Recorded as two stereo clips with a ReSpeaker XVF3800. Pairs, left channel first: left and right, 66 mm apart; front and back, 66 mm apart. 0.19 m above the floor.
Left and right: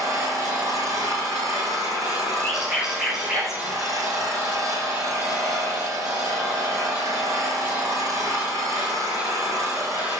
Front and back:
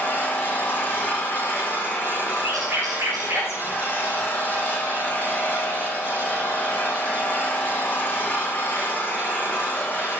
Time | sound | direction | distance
0.0 | an engine running | 60° right | 3 m
2.4 | a bird | 170° right | 8 m